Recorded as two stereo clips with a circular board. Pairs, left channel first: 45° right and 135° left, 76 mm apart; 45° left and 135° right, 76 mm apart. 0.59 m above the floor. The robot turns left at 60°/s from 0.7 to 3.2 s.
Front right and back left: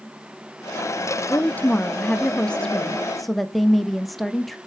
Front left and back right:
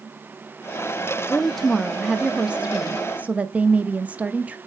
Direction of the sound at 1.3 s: 20° right.